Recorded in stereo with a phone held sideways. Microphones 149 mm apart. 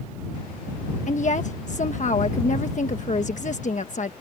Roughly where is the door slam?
I don't hear a door slam.